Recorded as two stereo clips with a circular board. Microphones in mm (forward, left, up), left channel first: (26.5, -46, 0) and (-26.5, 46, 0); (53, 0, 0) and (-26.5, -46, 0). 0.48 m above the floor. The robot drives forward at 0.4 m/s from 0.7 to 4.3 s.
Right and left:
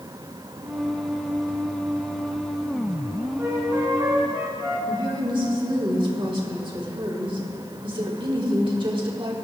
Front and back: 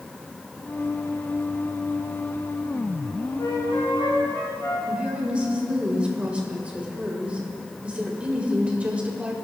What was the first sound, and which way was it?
A flute, 60° left.